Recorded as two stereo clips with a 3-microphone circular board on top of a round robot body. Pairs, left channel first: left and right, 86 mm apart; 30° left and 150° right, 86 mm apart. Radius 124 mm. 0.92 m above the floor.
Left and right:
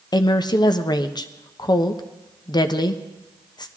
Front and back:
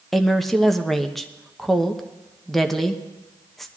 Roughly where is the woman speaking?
Behind left.